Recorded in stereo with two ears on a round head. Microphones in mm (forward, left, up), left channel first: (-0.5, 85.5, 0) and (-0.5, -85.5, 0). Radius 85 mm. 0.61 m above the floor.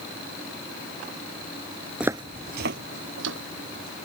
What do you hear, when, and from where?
2.0 s footsteps: 5° right (ahead or behind); by 4.0 s 80° right